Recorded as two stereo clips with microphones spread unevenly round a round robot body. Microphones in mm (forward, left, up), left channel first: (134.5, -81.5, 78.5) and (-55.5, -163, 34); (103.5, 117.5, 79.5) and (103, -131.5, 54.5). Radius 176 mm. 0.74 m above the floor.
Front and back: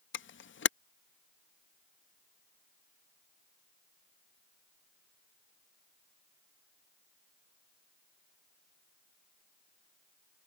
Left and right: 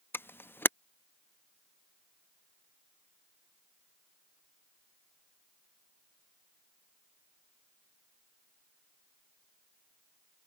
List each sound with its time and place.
0.1 s a camera shutter: 5° left